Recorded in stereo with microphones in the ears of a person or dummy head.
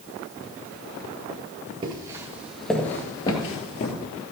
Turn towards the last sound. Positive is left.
turn(degrees=45)  # may be behind; listen again after turning